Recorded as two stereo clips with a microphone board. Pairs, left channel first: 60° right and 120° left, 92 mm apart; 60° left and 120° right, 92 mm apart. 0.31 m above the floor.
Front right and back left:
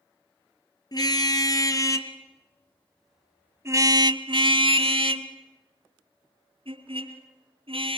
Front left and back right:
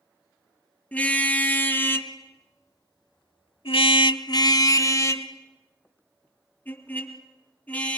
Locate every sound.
0.9 s a car horn: 15° right, 2.5 m; by 8.0 s 135° left, 4 m